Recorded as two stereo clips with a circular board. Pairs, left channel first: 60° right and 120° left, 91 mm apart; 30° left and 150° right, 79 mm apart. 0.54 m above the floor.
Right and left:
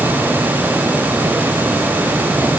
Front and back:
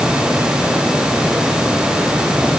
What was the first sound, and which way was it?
Only background noise.